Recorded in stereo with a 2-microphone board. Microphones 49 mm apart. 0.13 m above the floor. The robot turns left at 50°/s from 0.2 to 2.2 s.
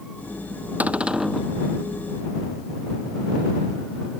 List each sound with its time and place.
0.8 s a cupboard door: 145° right; by 1.5 s straight behind